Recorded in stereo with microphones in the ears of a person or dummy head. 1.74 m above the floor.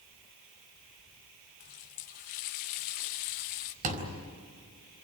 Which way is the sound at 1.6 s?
40° left (ahead or behind).